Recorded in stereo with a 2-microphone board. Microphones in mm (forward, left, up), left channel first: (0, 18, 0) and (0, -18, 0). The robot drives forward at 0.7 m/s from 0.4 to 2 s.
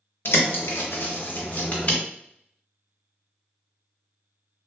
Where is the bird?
70° left (ahead or behind), 0.6 m; by 2.0 s 35° left (ahead or behind), 1.1 m.